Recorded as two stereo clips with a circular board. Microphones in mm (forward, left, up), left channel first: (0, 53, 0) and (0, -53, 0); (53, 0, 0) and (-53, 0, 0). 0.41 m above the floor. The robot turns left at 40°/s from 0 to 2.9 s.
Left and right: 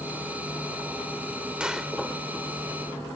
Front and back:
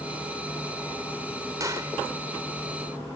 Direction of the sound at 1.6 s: 165° right.